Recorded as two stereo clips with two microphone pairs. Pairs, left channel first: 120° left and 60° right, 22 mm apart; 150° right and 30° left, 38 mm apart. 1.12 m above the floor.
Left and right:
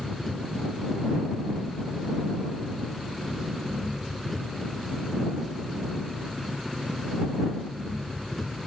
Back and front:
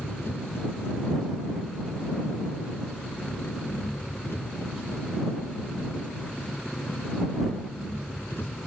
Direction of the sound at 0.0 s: 155° right.